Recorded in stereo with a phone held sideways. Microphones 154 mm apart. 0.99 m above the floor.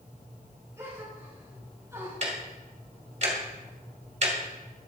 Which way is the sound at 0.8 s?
20° right (ahead or behind).